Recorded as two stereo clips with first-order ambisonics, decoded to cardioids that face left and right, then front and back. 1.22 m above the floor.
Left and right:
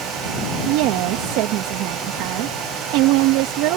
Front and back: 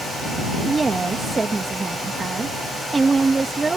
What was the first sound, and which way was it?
A woman speaking, 105° right.